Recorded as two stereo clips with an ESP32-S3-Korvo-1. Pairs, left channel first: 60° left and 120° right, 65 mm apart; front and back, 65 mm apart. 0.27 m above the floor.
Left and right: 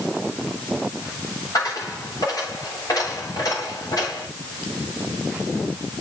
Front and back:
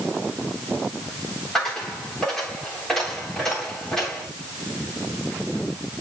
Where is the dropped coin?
85° left, 9 m.